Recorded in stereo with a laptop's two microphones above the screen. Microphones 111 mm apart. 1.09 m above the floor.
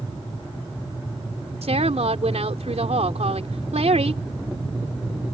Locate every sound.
1.6 s a woman speaking: 75° right (ahead or behind)